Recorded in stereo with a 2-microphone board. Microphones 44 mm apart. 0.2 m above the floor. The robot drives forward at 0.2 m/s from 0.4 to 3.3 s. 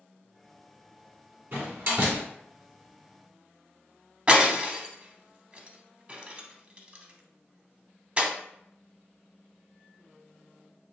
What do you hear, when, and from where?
1.5 s a door slam: 50° right (ahead or behind), 1.6 m
4.3 s breaking glass: 25° right (ahead or behind), 0.5 m